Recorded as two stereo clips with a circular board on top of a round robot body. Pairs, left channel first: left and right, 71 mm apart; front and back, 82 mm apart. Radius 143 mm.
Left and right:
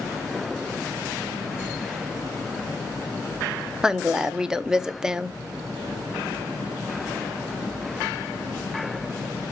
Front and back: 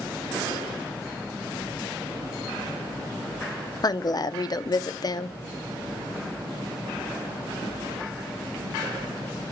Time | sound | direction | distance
3.8 | a woman speaking | 10° right | 1.1 m